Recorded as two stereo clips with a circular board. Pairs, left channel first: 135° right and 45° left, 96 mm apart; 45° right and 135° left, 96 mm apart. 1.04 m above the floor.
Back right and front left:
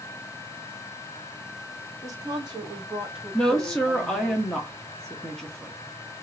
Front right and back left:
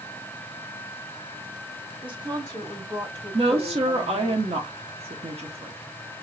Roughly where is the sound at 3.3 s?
Behind left.